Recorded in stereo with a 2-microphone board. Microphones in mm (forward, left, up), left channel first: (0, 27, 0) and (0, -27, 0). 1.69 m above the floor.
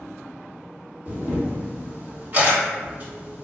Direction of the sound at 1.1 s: 40° right (ahead or behind).